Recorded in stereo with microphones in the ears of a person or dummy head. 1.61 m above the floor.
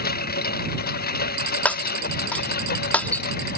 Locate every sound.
0.0 s a lawn mower: 55° left (ahead or behind)
1.6 s breaking glass: 10° left (ahead or behind)